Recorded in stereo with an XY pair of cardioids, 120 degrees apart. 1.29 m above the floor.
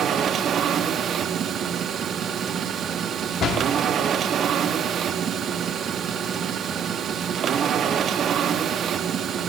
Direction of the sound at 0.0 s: 45° right.